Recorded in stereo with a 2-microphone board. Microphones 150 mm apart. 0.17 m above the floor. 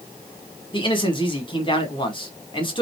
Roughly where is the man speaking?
Left.